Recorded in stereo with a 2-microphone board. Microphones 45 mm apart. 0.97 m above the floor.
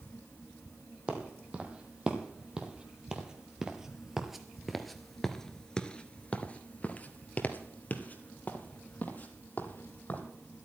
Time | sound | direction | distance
1.1 | footsteps | 25° right (ahead or behind) | 2.5 m